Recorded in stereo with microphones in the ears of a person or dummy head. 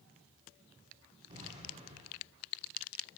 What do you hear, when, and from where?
1.3 s an explosion: 30° right (ahead or behind), 4.5 m